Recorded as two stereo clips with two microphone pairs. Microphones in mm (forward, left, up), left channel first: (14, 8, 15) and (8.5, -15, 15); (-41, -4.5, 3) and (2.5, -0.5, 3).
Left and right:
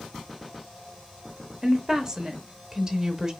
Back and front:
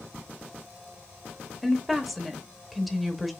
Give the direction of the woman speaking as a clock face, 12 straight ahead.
3 o'clock.